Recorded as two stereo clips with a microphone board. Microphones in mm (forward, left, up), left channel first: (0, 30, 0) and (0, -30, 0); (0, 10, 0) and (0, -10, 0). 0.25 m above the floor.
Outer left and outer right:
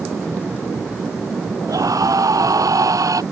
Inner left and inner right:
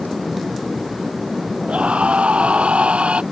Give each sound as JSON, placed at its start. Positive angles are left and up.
{"t": 1.7, "sound": "a scream", "side_deg": -75}